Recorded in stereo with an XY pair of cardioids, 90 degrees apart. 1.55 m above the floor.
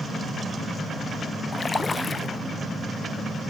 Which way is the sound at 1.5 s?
30° left.